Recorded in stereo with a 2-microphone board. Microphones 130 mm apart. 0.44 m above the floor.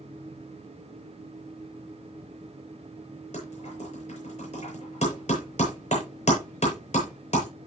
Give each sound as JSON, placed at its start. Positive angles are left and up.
{"t": 3.3, "sound": "typing on a keyboard", "side_deg": 60, "distance_m": 8.5}